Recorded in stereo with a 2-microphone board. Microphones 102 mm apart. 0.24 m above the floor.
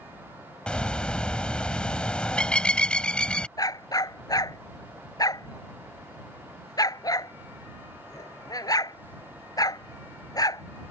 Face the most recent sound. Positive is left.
turn(degrees=40)  # may be behind; listen again after turning